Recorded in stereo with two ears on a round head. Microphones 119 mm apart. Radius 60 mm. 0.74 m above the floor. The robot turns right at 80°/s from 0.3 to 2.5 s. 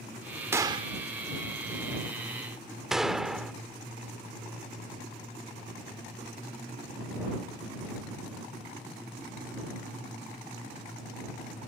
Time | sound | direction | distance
0.5 | a gunshot | 20° right (ahead or behind) | ?